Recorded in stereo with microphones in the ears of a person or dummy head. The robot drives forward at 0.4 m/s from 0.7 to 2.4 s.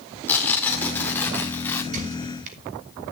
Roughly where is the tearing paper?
Centre.